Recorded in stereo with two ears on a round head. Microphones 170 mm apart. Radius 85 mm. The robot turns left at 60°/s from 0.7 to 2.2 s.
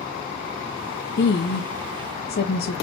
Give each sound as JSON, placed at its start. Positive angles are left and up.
{"t": 1.2, "sound": "a woman speaking", "azimuth_deg": 125, "distance_m": 0.8}